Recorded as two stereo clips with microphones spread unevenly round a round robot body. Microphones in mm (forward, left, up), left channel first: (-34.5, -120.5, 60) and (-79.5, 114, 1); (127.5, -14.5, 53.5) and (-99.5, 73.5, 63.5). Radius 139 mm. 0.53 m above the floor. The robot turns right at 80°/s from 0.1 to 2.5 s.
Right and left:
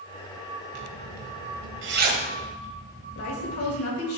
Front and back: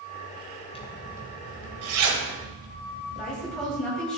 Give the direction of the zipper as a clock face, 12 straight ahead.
10 o'clock.